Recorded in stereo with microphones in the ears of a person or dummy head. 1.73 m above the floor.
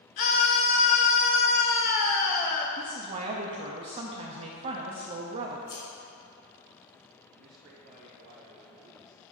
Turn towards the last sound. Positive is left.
turn(degrees=-70)  # may be behind; listen again after turning